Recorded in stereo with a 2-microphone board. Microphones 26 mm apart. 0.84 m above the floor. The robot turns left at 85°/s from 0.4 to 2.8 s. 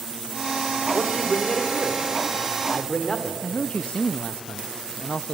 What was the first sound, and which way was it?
A man speaking, straight behind.